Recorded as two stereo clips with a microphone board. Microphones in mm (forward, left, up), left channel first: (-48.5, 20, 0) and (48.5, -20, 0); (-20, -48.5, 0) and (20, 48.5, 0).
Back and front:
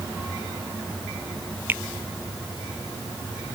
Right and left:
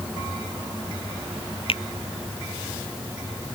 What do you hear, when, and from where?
1.7 s a finger snap: 90° right